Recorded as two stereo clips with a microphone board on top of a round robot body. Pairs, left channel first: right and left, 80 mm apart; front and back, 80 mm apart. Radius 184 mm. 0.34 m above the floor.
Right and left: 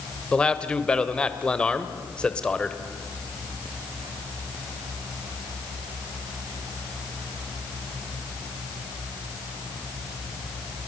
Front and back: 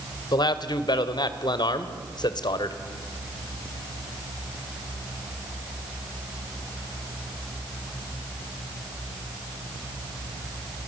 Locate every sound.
0.3 s a man speaking: 15° right, 2 m